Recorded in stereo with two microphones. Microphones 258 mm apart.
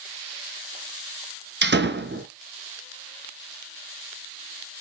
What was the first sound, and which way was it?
A door slam, 45° right (ahead or behind).